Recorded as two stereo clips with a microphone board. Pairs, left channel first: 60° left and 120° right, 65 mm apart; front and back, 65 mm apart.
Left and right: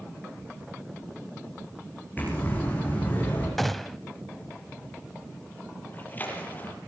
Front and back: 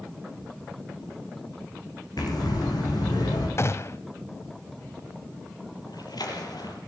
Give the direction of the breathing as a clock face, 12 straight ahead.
12 o'clock.